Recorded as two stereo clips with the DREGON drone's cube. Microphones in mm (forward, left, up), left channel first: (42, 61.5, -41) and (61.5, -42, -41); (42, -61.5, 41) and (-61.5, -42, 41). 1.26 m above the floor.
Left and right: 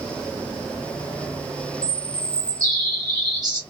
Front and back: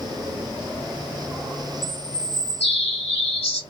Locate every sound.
1.8 s a bird: 30° right, 1.5 m